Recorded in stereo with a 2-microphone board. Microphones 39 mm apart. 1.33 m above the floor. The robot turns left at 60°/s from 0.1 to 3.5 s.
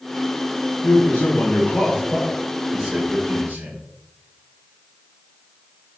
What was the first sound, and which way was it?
A man speaking, 100° left.